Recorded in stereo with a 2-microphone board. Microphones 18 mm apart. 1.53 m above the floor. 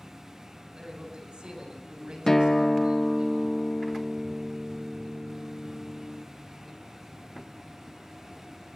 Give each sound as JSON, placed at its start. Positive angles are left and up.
{"t": 0.7, "sound": "a man speaking", "side_deg": -70, "distance_m": 8.5}
{"t": 2.3, "sound": "a guitar", "side_deg": 30, "distance_m": 1.0}